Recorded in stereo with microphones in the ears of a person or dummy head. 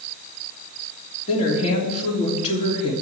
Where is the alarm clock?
I don't hear an alarm clock.